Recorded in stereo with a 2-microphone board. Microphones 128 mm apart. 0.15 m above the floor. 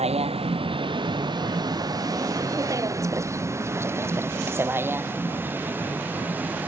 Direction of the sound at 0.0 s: 50° right (ahead or behind).